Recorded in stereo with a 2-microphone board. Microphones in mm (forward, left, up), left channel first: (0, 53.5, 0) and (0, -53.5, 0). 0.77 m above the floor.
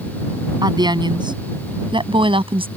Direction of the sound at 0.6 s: 45° right (ahead or behind).